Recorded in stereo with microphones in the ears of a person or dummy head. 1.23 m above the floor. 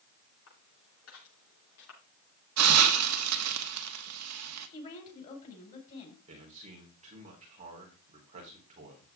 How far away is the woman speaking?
About 4.5 m.